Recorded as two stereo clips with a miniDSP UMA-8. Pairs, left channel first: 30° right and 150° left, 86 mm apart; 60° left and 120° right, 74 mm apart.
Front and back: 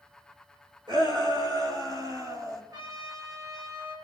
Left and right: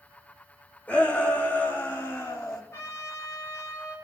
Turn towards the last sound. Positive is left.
turn(degrees=110)